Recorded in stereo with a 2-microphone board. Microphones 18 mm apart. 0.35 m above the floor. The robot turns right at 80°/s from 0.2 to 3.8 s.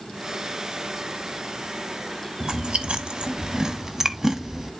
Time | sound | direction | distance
2.4 | chewing | 50° right (ahead or behind) | 0.9 m